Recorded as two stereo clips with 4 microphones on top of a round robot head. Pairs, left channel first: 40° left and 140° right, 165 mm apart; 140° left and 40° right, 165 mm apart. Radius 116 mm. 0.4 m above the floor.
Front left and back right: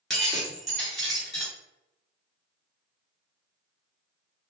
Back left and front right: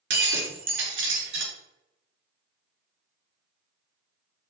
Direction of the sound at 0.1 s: 50° right.